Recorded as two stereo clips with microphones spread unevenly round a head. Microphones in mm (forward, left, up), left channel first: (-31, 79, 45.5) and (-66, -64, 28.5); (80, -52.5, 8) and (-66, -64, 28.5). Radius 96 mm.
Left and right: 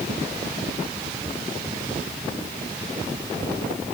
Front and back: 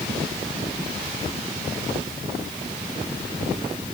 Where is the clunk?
I don't hear a clunk.